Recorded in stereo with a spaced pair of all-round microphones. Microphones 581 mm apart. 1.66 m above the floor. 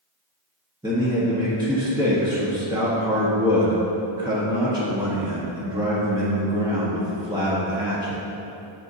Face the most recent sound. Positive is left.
turn(degrees=-10)  # may be behind; listen again after turning